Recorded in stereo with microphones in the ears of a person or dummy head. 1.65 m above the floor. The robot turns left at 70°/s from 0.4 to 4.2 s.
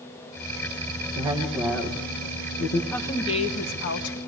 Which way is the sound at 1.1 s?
145° right.